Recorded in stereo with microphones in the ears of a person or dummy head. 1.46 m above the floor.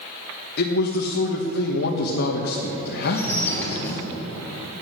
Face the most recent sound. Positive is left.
turn(degrees=15)  # may be behind; listen again after turning